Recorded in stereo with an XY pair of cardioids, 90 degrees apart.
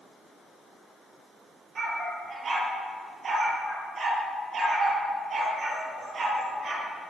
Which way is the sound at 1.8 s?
55° right.